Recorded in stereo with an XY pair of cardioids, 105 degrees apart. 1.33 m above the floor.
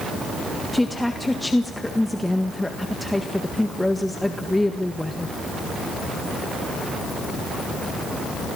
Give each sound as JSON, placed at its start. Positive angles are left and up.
{"t": 0.7, "sound": "a woman speaking", "azimuth_deg": 5, "distance_m": 1.6}